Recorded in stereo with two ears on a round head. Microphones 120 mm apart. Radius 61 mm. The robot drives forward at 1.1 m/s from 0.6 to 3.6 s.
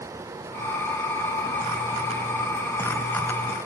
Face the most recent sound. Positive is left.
No sound to turn to.